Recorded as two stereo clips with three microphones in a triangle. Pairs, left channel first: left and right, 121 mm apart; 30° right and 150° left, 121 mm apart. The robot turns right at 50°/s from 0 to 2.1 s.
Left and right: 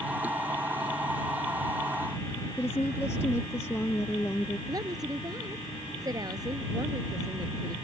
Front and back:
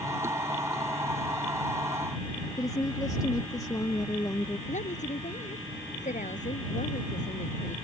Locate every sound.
2.6 s a woman speaking: 25° left
4.7 s a woman speaking: 30° right